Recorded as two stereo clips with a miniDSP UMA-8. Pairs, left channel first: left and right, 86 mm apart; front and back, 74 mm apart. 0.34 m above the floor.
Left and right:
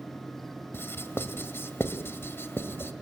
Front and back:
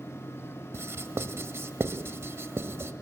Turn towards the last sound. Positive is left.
turn(degrees=140)